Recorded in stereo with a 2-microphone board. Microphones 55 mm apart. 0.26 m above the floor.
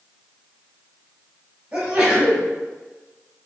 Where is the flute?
No flute in this recording.